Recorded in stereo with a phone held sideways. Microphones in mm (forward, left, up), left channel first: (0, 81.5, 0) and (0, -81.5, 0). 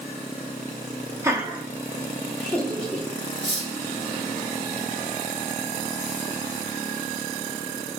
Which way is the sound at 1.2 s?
15° right (ahead or behind).